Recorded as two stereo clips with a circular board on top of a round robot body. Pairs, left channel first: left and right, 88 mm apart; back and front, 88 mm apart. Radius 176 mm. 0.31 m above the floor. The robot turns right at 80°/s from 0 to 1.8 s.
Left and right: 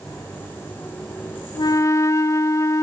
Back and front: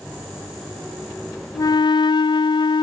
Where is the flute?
125° left, 0.5 m; by 2.8 s 145° left, 0.5 m.